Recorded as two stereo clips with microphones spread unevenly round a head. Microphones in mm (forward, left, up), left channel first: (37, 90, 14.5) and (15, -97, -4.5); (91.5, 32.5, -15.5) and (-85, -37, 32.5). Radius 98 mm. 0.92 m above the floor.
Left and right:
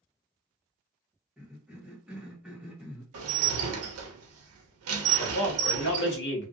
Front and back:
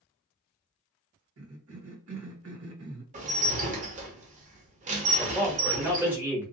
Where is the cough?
Straight behind, 1.1 m.